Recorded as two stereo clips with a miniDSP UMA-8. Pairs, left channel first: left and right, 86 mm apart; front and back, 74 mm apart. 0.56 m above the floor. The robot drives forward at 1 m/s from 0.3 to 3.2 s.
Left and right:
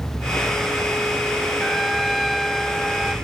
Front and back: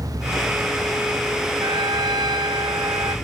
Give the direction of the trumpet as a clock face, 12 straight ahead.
6 o'clock.